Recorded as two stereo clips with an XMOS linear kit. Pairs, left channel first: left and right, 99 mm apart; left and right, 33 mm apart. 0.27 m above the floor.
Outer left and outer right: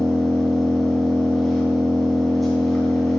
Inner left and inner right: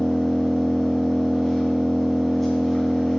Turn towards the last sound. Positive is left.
turn(degrees=0)  # may be behind; listen again after turning